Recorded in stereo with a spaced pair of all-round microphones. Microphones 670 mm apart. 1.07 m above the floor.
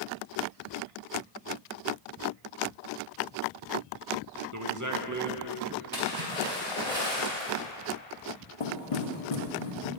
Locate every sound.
4.5 s a man speaking: 25° right (ahead or behind), 1.2 m
5.9 s a splash: 60° right (ahead or behind), 4 m
8.6 s knocking: 55° left (ahead or behind), 1.2 m